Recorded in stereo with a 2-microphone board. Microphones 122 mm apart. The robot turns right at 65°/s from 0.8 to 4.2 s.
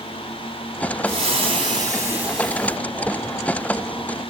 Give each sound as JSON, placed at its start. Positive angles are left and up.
{"t": 1.1, "sound": "frying", "azimuth_deg": -90, "distance_m": 1.9}